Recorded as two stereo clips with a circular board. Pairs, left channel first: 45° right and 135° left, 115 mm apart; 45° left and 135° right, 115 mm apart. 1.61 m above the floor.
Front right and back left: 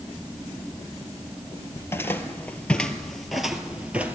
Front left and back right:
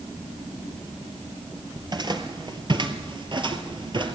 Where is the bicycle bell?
No bicycle bell in this recording.